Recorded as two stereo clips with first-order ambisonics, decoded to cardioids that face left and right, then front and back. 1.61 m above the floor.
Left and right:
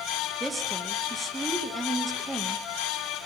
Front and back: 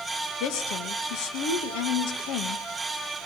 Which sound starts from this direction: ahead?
A woman speaking, at 0.4 s.